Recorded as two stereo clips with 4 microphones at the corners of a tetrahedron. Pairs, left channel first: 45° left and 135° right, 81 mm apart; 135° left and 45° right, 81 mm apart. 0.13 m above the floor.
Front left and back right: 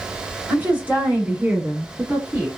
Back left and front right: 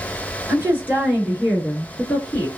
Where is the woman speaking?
80° right, 1.4 m; by 2.5 s 175° left, 1.3 m.